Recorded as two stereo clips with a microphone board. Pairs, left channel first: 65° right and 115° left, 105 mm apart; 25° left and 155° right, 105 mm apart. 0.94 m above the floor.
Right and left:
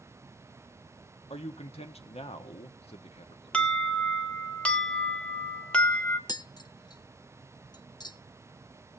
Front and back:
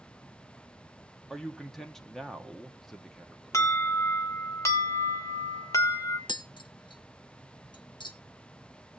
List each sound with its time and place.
1.3 s a man speaking: 65° right, 1.3 m
3.5 s an alarm: straight ahead, 1.4 m
6.3 s tapping: 20° right, 0.9 m